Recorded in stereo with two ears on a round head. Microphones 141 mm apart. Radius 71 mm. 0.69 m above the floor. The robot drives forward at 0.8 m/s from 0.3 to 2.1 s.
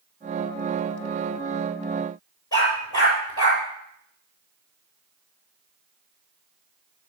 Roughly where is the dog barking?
Left.